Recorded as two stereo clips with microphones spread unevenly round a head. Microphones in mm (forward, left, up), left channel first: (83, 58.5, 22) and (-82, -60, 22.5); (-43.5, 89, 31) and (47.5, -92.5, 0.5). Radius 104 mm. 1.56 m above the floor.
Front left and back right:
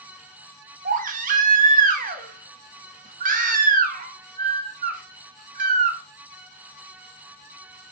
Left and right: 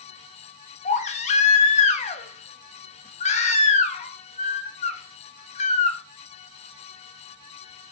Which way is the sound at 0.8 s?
165° left.